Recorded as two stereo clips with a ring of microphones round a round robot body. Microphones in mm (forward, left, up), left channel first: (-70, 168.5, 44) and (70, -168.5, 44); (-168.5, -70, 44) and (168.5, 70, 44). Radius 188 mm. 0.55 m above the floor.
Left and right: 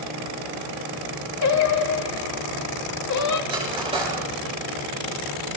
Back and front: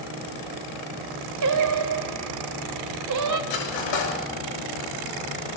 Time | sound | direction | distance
1.4 | singing | 65° left | 1.1 m
3.5 | cutlery clinking | 145° right | 6.5 m